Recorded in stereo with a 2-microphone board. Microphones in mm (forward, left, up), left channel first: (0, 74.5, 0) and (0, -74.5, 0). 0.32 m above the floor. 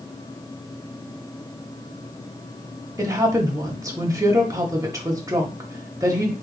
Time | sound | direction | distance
3.0 | a woman speaking | 20° right (ahead or behind) | 1.0 m